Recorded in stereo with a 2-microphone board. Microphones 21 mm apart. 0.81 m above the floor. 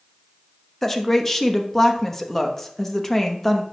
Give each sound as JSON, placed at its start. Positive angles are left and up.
{"t": 0.8, "sound": "a woman speaking", "side_deg": 20, "distance_m": 0.9}